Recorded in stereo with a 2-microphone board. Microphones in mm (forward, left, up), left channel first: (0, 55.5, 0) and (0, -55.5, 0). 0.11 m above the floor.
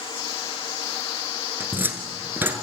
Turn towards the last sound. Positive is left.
turn(degrees=-20)  # may be behind; listen again after turning